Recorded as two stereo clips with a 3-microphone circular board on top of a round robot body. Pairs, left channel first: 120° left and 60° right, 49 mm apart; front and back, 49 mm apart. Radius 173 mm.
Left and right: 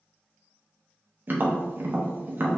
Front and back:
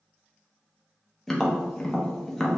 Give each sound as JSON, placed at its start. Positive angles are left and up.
{"t": 1.3, "sound": "tapping", "azimuth_deg": -80, "distance_m": 0.9}